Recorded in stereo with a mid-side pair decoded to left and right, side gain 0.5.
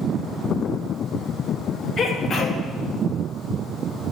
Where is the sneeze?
40° left, 2.5 m.